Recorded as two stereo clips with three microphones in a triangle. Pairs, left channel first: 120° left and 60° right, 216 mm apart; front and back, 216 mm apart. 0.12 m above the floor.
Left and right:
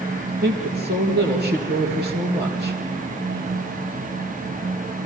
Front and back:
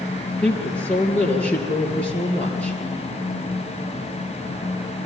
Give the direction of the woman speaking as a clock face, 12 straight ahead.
3 o'clock.